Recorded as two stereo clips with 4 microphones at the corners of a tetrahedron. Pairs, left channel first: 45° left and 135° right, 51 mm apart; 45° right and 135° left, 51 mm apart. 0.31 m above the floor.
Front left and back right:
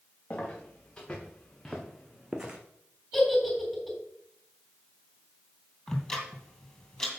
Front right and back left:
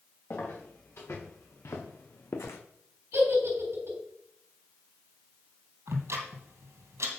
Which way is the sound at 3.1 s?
135° left.